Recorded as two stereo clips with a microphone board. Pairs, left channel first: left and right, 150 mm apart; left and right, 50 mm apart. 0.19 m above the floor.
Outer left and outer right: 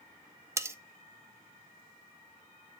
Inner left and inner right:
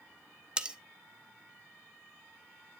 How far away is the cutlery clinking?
About 0.6 m.